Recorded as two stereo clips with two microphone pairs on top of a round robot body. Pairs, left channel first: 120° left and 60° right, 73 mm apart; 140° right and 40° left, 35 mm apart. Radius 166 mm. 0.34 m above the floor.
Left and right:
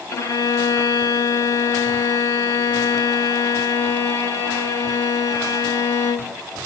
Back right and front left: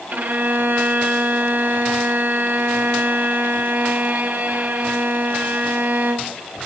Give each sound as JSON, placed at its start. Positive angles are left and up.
{"t": 0.1, "sound": "a violin", "azimuth_deg": 70, "distance_m": 3.0}